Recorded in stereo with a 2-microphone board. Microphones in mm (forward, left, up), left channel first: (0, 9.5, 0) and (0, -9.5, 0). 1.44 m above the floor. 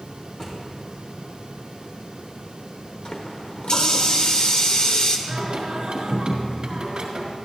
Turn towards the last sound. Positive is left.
turn(degrees=-70)  # may be behind; listen again after turning